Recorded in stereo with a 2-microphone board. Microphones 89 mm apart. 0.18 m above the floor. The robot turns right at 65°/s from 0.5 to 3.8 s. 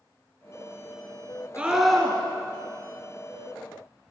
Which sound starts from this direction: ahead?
A scream, at 1.6 s.